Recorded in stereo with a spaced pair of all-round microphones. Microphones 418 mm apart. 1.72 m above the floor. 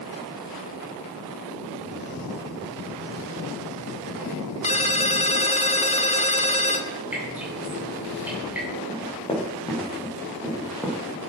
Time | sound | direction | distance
4.6 | a ringtone | 15° left (ahead or behind) | 1.1 m
7.1 | dripping | 5° right (ahead or behind) | 9 m
8.9 | running footsteps | 15° left (ahead or behind) | 7.5 m